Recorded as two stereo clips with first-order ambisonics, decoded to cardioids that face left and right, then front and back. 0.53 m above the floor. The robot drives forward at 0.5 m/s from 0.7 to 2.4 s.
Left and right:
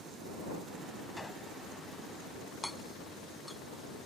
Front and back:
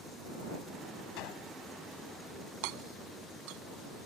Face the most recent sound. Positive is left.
turn(degrees=180)